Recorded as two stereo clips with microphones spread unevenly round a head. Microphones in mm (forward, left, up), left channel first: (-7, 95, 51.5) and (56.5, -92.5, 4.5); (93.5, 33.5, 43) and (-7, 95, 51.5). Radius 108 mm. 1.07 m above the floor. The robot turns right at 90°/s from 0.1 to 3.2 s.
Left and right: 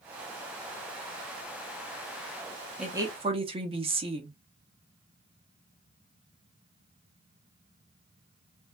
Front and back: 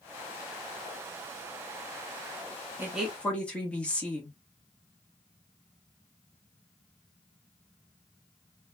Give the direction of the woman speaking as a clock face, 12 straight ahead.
5 o'clock.